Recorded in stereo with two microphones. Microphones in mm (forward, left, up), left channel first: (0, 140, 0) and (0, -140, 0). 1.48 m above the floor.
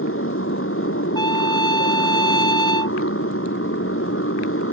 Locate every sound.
0.0 s a motorcycle: 50° left (ahead or behind)
1.1 s a trumpet: 15° left (ahead or behind)